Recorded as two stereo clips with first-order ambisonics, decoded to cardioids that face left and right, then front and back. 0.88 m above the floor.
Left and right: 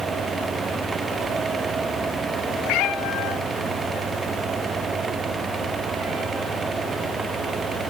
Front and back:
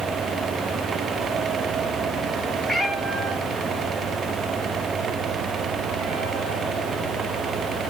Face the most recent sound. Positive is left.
turn(degrees=-125)